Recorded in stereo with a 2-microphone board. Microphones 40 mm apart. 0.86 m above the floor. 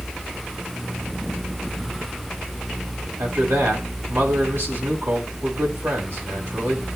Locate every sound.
3.2 s a man speaking: 65° right (ahead or behind), 3.5 m